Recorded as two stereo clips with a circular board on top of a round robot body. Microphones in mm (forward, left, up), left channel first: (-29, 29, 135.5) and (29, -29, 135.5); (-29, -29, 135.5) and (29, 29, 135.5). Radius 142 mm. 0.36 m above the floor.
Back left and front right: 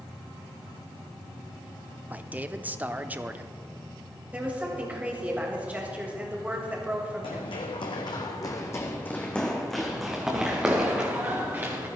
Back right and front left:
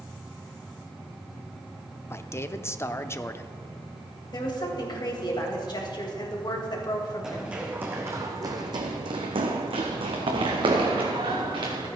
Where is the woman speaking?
115° right, 3 m.